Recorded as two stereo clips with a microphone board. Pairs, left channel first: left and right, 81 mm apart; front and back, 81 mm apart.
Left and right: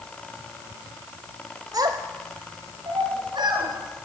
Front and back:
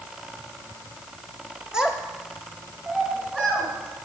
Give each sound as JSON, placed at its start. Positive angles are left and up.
{"t": 1.7, "sound": "a child speaking", "azimuth_deg": -100, "distance_m": 1.4}